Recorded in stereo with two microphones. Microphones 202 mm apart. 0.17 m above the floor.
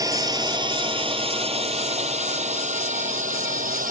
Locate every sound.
0.0 s a drone: 15° right (ahead or behind); by 3.9 s 40° right (ahead or behind)